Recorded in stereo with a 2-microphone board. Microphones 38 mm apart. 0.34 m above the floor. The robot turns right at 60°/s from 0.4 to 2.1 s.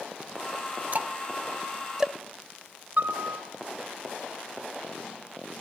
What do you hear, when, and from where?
0.9 s ticking: 45° right (ahead or behind), 0.7 m; by 2.1 s 15° right (ahead or behind), 0.7 m
3.0 s a piano: 45° right (ahead or behind), 3.5 m